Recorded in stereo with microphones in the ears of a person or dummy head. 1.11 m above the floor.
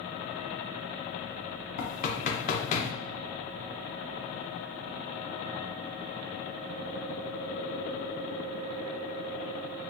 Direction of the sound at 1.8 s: 40° left (ahead or behind).